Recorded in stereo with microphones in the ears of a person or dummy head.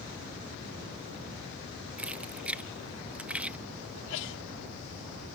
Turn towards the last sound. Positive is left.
turn(degrees=75)  # may be behind; listen again after turning